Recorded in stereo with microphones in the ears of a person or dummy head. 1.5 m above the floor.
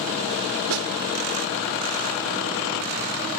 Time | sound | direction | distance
0.7 | a snare drum | 80° right | ?